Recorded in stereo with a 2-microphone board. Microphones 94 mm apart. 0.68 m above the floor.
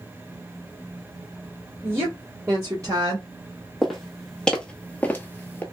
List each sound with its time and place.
1.8 s a woman speaking: 15° right (ahead or behind), 1.7 m; by 3.3 s 40° right (ahead or behind), 1.1 m
3.8 s footsteps: centre (ahead or behind), 1.2 m; by 5.6 s 25° left (ahead or behind), 0.7 m